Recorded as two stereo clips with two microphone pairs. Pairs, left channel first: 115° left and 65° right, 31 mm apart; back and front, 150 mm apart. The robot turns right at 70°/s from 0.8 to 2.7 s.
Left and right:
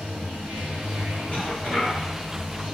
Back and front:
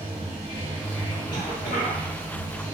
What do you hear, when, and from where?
0.0 s running water: 55° right, 0.9 m; by 2.8 s 75° left, 0.9 m
1.3 s a cough: 120° left, 1.4 m; by 2.0 s 170° left, 1.4 m